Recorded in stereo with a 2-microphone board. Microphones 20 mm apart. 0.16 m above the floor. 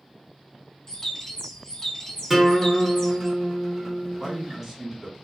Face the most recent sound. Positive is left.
turn(degrees=-15)  # may be behind; listen again after turning